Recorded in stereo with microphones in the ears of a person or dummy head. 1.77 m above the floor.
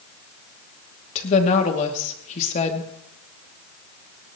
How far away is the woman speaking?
About 2.5 m.